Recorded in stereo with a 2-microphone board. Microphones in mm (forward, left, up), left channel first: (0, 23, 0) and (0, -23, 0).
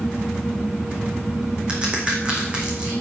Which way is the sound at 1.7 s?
25° right (ahead or behind).